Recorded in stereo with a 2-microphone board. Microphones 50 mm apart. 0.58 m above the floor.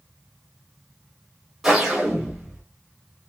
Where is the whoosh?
5° right (ahead or behind), 1.0 m.